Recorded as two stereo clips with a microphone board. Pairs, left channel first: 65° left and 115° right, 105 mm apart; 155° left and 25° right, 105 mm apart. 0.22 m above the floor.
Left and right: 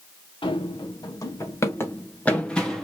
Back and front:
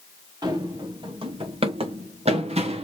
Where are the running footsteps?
30° left, 1.7 m; by 2.9 s 20° right, 1.9 m.